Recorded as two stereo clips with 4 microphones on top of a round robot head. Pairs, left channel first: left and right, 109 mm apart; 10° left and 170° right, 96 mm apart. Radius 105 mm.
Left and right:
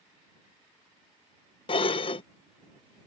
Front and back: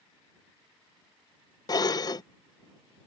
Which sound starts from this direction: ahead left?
Dishes clattering, at 1.7 s.